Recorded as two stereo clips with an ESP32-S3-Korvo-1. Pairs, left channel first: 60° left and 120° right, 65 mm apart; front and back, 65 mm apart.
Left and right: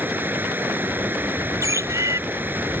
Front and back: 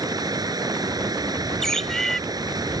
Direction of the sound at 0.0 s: Straight behind.